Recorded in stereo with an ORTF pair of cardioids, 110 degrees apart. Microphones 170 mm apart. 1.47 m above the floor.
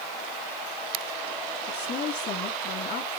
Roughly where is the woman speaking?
Ahead left.